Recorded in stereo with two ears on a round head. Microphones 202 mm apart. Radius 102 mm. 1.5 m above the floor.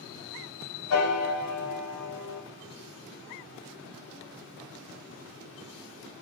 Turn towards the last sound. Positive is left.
turn(degrees=75)  # may be behind; listen again after turning